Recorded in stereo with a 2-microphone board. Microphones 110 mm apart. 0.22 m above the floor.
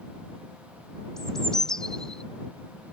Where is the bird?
5° left (ahead or behind).